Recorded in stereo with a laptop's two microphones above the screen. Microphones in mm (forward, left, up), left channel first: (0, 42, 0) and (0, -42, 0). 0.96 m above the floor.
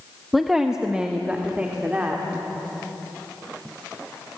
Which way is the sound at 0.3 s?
Centre (ahead or behind).